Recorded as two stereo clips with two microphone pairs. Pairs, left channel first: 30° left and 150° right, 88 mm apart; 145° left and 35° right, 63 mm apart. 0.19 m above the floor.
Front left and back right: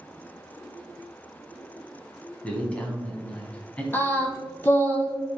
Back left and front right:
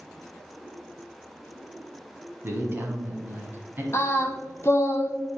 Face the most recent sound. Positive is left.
turn(degrees=95)